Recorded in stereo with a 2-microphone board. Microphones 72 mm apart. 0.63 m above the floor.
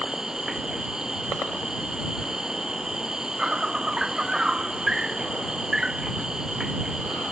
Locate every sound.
0.0 s an insect: 10° right (ahead or behind)